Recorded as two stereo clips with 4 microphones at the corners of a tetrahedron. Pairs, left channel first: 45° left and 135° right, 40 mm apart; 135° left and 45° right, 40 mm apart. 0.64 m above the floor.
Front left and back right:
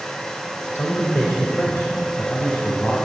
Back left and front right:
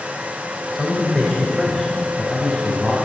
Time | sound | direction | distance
0.8 | a man speaking | 40° left | 3 m